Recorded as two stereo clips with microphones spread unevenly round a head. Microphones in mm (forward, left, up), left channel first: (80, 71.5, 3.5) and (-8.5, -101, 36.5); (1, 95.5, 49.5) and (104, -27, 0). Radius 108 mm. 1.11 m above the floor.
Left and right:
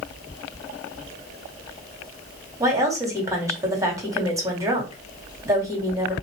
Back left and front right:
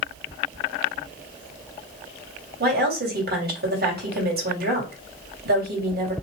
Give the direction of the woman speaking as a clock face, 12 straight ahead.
1 o'clock.